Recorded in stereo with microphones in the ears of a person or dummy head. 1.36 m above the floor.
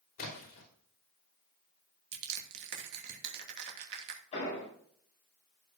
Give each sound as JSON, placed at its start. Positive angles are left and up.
{"t": 0.2, "sound": "a splash", "side_deg": 45, "distance_m": 3.0}
{"t": 2.1, "sound": "crushing", "side_deg": -60, "distance_m": 2.5}
{"t": 4.3, "sound": "an explosion", "side_deg": 35, "distance_m": 5.5}